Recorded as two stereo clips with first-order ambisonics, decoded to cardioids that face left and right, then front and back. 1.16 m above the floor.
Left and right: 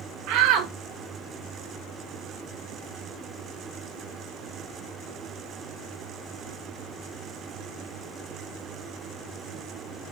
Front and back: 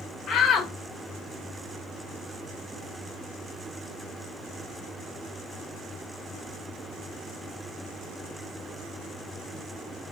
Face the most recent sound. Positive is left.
turn(degrees=-60)